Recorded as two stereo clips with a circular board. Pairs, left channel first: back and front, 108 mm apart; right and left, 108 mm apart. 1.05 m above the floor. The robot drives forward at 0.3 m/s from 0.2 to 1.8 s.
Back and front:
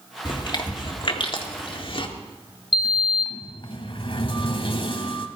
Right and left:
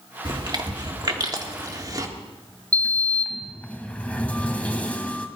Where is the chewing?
135° left, 1.6 m; by 2.1 s 145° left, 2.0 m.